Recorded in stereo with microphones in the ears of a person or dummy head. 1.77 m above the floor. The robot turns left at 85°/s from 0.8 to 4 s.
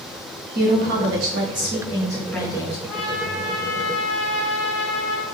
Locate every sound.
0.6 s a woman speaking: 60° right, 1.3 m; by 2.8 s 130° left, 1.3 m
2.9 s a trumpet: 80° left, 2 m; by 5.2 s 20° right, 2 m